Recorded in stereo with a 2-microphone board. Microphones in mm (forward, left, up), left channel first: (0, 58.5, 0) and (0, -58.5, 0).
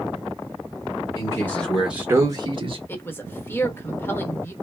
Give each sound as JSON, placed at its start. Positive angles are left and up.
{"t": 1.1, "sound": "a man speaking", "side_deg": 30, "distance_m": 1.0}
{"t": 2.9, "sound": "a woman speaking", "side_deg": 20, "distance_m": 1.1}